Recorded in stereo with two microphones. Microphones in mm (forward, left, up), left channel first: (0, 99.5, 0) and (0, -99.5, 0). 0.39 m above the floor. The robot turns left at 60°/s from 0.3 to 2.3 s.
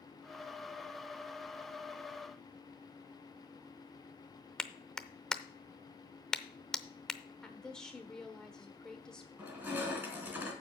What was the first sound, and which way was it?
A clap, 5° left (ahead or behind).